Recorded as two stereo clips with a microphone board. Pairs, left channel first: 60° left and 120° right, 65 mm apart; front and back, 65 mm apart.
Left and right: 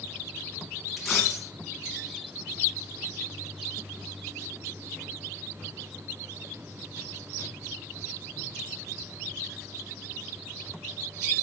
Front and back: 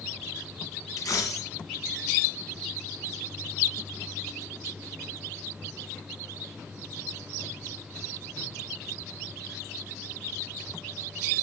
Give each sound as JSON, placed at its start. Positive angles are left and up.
{"t": 1.0, "sound": "a dropped coin", "azimuth_deg": -30, "distance_m": 2.0}